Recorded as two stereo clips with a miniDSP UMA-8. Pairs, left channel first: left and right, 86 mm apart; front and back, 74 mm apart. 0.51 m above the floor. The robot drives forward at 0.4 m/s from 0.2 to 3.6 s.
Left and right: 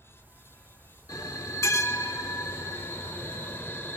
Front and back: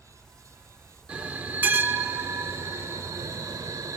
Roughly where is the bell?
Behind left.